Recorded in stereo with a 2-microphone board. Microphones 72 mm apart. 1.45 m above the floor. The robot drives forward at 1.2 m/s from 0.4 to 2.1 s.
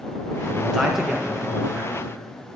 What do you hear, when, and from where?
0.5 s a man speaking: 5° right (ahead or behind), 0.9 m; by 2.0 s centre (ahead or behind), 3 m